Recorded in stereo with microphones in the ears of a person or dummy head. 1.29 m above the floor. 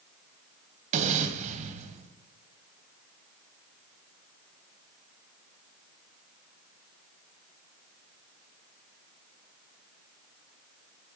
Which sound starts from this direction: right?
An explosion, at 0.9 s.